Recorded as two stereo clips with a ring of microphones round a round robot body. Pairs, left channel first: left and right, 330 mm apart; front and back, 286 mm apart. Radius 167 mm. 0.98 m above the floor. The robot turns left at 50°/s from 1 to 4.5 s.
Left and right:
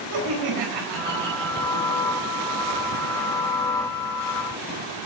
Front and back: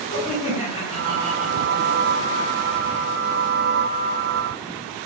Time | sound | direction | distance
0.1 | laughter | 70° right | 4 m